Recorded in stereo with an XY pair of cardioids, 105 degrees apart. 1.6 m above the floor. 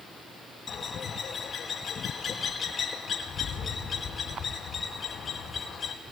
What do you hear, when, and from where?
0.7 s a bird: 40° left, 4.5 m